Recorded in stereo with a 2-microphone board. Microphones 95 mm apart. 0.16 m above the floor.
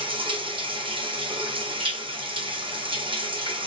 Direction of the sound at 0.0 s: 65° right (ahead or behind).